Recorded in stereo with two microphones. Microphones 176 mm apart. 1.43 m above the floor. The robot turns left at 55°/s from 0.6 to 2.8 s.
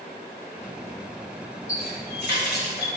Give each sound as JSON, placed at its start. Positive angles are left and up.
{"t": 1.7, "sound": "a running tap", "azimuth_deg": 130, "distance_m": 3.0}